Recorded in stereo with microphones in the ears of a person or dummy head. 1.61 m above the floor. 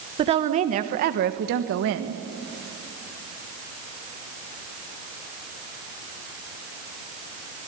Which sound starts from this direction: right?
A woman speaking, at 0.2 s.